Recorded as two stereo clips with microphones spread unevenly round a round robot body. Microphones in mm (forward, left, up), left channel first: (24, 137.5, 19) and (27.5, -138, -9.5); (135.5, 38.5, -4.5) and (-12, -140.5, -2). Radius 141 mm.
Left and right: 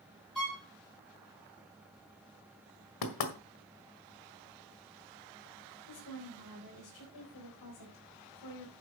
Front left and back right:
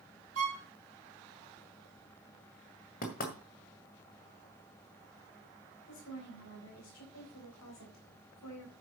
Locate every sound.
0.3 s a violin: straight behind, 4.5 m
3.0 s knocking: 115° left, 1.8 m
5.9 s a woman speaking: 75° left, 4 m